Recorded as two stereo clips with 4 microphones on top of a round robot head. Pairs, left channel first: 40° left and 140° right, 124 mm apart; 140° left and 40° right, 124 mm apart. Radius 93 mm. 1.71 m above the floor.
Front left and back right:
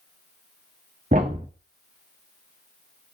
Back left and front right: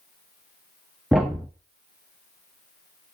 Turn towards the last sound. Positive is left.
turn(degrees=-125)